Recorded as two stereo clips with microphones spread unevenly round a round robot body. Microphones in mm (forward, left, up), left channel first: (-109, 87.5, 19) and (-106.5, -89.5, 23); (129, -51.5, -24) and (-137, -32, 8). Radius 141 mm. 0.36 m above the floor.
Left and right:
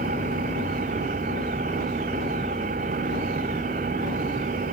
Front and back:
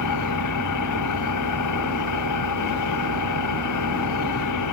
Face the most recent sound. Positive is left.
turn(degrees=-25)